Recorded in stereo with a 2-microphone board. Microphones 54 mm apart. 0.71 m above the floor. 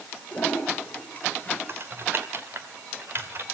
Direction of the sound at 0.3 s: 25° left (ahead or behind).